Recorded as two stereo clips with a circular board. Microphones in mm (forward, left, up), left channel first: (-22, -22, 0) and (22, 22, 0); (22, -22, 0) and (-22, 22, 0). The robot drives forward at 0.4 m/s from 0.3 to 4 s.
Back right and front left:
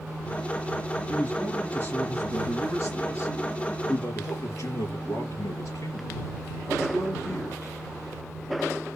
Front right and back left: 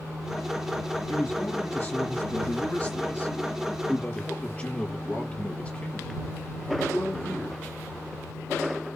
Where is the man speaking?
85° right, 3 m; by 7.7 s 115° right, 3 m.